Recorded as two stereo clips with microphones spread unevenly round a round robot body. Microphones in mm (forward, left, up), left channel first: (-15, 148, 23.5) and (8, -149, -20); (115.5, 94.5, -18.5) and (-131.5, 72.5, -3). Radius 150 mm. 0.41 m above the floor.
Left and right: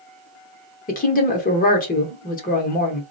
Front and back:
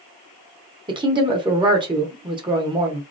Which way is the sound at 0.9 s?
135° left.